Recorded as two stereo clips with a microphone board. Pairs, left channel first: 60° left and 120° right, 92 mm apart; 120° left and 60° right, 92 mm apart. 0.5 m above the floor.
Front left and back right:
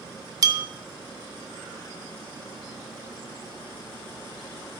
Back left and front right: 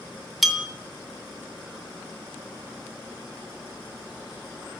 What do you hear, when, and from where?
0.4 s a bell: 150° right, 0.7 m